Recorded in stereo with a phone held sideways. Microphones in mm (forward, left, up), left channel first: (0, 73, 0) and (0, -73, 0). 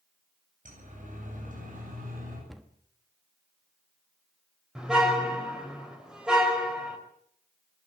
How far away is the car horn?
About 4 m.